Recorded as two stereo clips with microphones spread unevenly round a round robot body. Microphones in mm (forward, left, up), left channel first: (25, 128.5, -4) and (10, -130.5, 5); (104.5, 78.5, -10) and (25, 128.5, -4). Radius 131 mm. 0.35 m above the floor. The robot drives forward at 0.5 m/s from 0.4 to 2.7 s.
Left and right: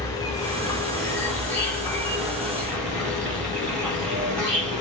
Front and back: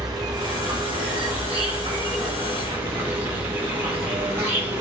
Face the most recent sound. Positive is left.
turn(degrees=170)